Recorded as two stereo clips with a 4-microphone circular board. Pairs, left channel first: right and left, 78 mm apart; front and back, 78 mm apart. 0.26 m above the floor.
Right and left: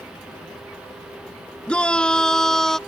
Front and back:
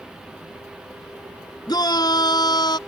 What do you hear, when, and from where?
1.7 s a shout: 15° right; by 2.8 s 5° right